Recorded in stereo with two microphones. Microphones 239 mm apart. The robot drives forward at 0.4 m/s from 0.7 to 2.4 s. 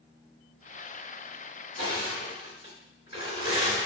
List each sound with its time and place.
1.8 s crushing: 50° left (ahead or behind), 1.9 m